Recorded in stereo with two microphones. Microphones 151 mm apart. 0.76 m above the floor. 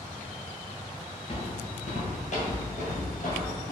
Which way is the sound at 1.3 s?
40° left (ahead or behind).